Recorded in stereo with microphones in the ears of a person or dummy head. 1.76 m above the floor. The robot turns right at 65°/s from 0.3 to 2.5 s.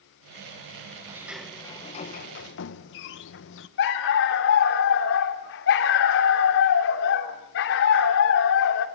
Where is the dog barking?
60° left (ahead or behind), 2.5 m.